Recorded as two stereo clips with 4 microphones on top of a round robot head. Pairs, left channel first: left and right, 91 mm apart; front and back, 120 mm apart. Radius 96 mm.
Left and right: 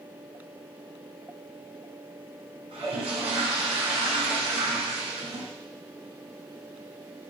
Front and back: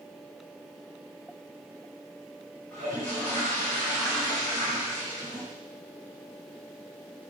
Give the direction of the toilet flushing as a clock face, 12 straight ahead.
3 o'clock.